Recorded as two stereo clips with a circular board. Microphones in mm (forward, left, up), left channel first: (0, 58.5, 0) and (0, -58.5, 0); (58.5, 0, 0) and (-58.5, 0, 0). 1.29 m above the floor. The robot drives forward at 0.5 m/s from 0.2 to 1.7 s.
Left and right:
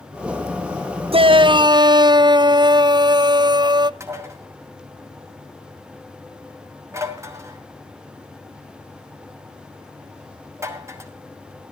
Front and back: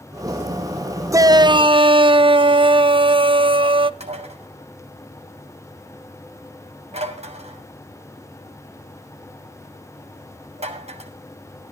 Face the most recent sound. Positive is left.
turn(degrees=-155)